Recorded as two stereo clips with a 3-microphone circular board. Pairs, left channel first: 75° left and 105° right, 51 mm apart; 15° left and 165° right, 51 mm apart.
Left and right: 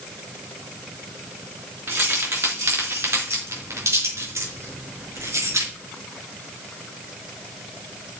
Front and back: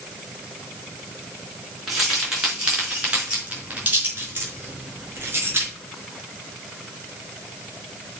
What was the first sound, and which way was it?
Keys jangling, 80° right.